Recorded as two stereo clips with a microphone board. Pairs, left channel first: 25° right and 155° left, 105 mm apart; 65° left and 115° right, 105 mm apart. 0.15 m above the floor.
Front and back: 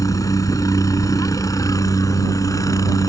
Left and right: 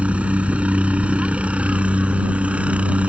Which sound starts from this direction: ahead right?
A helicopter, at 0.0 s.